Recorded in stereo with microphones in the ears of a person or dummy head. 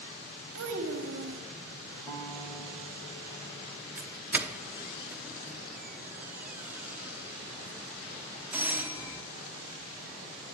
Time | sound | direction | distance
0.6 | a child speaking | 65° right (ahead or behind) | 1.3 m
2.1 | a guitar | 15° left (ahead or behind) | 2 m
4.0 | a doorbell | 10° right (ahead or behind) | 0.6 m